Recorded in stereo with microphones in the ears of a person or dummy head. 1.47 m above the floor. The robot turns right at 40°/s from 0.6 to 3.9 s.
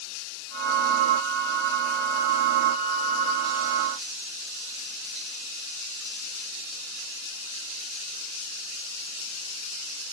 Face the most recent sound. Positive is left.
No sound to turn to.